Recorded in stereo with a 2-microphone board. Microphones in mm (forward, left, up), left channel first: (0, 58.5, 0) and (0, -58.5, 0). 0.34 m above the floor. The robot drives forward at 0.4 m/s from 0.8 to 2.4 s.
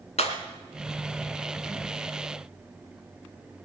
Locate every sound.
0.2 s breaking glass: 75° left (ahead or behind), 2.0 m